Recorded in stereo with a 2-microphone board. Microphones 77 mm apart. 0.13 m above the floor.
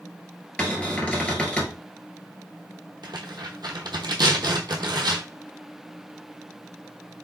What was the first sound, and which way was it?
A cupboard door, 15° left (ahead or behind).